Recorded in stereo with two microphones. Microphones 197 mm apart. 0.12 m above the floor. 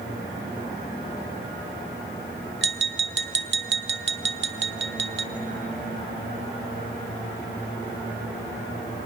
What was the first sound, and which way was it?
Tapping, 70° right (ahead or behind).